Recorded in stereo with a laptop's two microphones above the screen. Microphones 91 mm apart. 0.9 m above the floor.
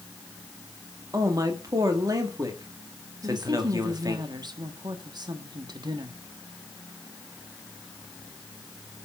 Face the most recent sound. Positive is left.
turn(degrees=-55)  # may be behind; listen again after turning